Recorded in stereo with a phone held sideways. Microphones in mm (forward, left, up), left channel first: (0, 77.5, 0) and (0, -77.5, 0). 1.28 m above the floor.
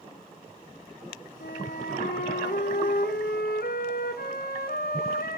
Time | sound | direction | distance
1.4 | a flute | 80° left | 2 m